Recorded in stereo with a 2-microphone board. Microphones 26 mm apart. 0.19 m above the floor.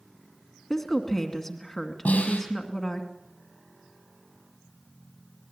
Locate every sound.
0.7 s a woman speaking: 10° left (ahead or behind), 2 m
2.0 s a snare drum: 75° left (ahead or behind), 6 m